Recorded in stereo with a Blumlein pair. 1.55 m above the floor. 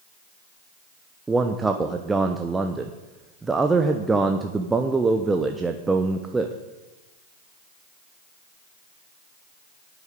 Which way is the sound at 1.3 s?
10° right.